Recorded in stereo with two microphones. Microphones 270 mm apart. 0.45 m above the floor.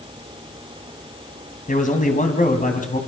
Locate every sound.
1.7 s a man speaking: 30° left (ahead or behind), 3.5 m